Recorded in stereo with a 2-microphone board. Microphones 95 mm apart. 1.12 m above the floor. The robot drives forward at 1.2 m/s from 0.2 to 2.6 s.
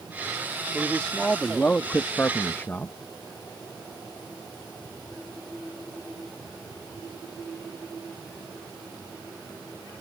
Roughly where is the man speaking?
Centre.